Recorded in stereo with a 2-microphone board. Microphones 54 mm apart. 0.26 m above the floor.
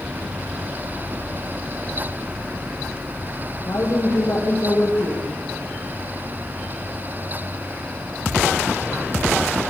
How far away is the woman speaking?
About 9 m.